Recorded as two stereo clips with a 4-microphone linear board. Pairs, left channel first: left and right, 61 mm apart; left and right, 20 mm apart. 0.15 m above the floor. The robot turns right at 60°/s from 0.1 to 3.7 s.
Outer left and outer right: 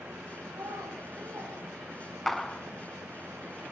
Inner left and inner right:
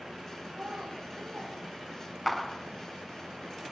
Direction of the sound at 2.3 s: 5° left (ahead or behind).